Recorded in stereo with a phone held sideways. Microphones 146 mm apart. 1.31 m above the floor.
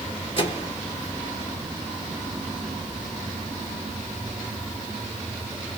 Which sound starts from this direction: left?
A microwave, at 0.4 s.